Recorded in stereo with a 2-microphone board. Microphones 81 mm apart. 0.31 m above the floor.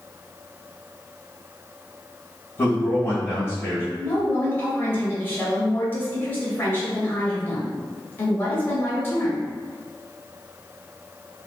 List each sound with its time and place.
2.6 s a man speaking: 25° left (ahead or behind), 1.6 m
4.0 s a woman speaking: 25° left (ahead or behind), 1.0 m